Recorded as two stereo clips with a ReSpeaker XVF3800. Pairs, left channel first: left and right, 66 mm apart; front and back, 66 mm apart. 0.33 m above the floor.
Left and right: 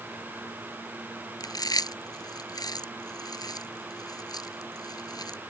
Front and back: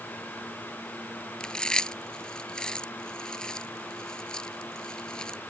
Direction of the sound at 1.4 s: 80° left.